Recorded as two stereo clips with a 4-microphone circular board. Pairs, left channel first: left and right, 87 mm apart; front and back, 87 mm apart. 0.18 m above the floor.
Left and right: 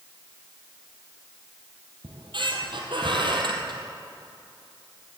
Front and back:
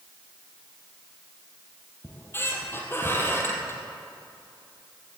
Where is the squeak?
65° right, 1.9 m.